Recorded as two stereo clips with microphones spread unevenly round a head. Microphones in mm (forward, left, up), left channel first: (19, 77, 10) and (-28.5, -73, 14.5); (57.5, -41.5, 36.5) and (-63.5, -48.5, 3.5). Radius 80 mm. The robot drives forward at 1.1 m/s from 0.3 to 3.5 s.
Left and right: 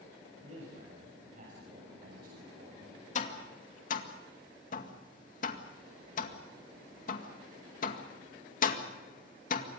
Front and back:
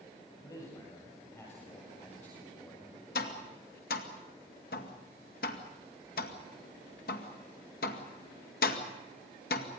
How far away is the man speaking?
About 7.5 m.